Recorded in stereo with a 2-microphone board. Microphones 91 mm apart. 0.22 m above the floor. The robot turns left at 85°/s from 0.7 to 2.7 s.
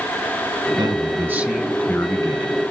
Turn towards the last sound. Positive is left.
turn(degrees=85)